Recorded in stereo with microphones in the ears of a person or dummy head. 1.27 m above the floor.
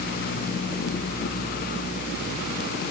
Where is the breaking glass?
I don't hear breaking glass.